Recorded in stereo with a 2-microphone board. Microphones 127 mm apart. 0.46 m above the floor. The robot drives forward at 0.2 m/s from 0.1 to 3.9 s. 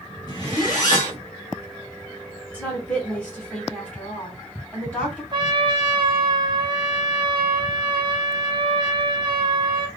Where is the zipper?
30° left (ahead or behind), 1.6 m.